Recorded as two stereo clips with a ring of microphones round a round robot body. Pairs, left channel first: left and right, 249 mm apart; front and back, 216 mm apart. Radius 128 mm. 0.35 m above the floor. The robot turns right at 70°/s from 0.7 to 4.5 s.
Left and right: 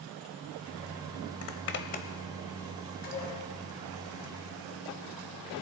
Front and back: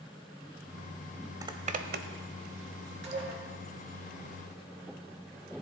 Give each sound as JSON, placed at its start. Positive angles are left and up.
{"t": 1.4, "sound": "a zipper", "azimuth_deg": 105, "distance_m": 1.1}
{"t": 3.0, "sound": "dishes clattering", "azimuth_deg": 145, "distance_m": 4.0}